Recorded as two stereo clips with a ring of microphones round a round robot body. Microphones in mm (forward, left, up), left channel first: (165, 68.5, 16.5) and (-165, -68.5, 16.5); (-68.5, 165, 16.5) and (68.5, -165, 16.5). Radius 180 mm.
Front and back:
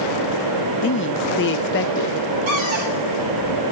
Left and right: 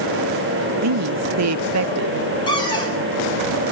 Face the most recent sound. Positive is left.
turn(degrees=-170)